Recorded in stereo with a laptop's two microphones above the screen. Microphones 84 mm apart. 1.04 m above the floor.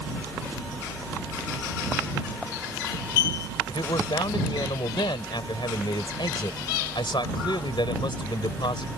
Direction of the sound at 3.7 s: 85° left.